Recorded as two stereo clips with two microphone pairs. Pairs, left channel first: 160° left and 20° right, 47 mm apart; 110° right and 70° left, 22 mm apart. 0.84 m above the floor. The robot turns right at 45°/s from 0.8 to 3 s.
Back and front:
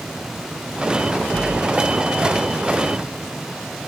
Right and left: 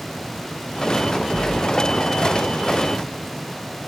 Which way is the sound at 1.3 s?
10° right.